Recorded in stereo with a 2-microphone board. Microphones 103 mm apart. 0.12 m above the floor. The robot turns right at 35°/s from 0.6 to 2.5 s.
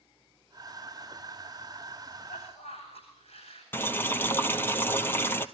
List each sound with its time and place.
2.2 s a cough: 60° left (ahead or behind), 9 m; by 3.6 s 70° left (ahead or behind), 9 m
3.7 s boiling: 20° left (ahead or behind), 1.1 m